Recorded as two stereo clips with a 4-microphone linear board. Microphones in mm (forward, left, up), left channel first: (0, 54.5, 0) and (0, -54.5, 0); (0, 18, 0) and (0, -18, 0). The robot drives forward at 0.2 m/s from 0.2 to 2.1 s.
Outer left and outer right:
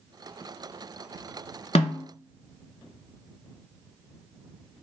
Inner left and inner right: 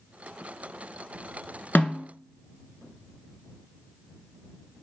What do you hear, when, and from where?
1.8 s a snare drum: 80° left, 0.6 m